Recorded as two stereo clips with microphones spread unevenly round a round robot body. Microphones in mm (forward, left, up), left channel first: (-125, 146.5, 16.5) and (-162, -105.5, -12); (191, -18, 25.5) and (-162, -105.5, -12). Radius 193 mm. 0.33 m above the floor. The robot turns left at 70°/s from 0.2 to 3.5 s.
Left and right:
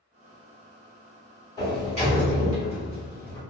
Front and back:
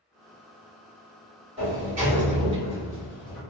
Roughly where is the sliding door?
Behind.